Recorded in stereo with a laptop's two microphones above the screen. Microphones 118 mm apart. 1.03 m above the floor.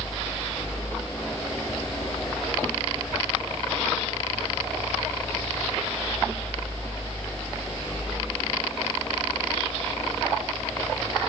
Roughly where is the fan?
Left.